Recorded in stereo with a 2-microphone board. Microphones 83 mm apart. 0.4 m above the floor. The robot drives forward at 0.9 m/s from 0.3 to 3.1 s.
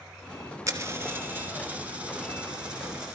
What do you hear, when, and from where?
0.7 s a dropped coin: 40° right (ahead or behind), 0.9 m; by 3.1 s 10° right (ahead or behind), 3 m